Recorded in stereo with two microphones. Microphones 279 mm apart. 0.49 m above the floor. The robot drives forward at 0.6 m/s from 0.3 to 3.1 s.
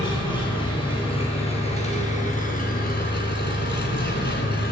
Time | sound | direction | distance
0.0 | an engine running | 15° left (ahead or behind) | 3 m